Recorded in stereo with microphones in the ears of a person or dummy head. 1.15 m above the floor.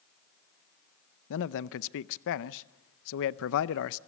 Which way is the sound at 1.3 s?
80° left.